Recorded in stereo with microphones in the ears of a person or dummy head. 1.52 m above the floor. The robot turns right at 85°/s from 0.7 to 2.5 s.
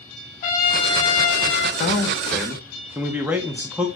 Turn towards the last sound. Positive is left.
turn(degrees=-175)